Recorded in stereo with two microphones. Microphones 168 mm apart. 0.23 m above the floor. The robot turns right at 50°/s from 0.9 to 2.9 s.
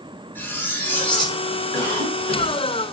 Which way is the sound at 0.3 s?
15° left (ahead or behind).